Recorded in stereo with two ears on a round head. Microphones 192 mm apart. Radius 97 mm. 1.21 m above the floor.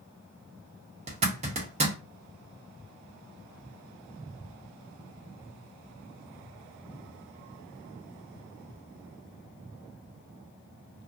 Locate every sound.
1.1 s a zipper: 30° right (ahead or behind), 1.0 m